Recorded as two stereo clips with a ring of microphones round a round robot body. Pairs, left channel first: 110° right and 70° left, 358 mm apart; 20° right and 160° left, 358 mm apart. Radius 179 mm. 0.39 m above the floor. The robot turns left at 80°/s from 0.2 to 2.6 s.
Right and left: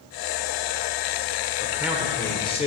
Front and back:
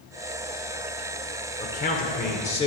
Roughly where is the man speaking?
Ahead.